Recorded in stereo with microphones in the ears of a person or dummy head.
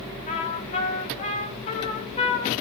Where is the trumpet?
30° left (ahead or behind), 0.7 m.